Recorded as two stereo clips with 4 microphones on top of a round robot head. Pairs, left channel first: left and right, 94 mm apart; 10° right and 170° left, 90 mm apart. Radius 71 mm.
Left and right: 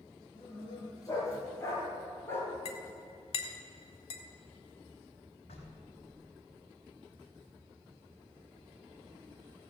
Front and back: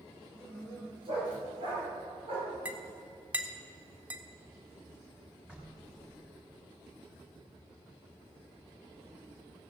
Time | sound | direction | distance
0.3 | a dog barking | 140° left | 4.5 m
2.6 | a clink | 95° left | 1.4 m
5.5 | knocking | 95° left | 4.5 m